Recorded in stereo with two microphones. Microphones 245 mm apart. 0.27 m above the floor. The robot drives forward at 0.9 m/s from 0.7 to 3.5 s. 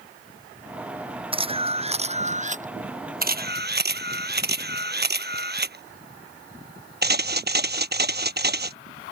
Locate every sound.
1.3 s a camera shutter: 20° right (ahead or behind); by 8.8 s 40° right (ahead or behind)